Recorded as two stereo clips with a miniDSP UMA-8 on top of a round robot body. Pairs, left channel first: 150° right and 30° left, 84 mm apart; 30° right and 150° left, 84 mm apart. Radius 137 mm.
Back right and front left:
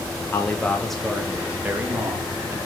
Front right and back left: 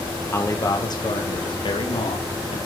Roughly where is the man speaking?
Right.